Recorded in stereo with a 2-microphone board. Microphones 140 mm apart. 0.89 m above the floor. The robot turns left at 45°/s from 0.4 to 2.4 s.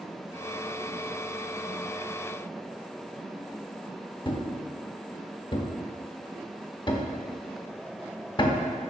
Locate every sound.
4.2 s a thud: 35° left (ahead or behind), 0.6 m